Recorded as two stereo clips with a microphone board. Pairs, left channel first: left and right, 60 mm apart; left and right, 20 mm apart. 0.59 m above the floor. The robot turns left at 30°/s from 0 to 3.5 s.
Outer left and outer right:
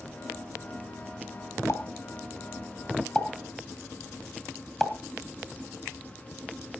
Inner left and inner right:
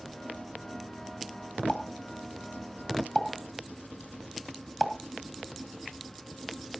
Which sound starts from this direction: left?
A pop, at 1.7 s.